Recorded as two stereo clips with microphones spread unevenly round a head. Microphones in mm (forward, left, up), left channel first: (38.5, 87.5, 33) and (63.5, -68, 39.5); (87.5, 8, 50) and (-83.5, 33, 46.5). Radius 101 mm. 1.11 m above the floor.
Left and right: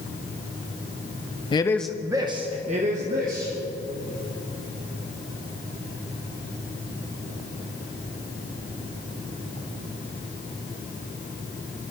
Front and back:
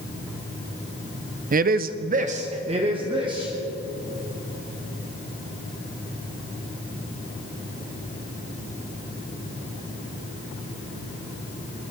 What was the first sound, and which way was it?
A man speaking, 150° left.